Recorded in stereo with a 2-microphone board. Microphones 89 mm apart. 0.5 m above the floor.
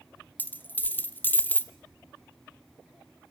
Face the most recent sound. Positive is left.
turn(degrees=20)  # may be behind; listen again after turning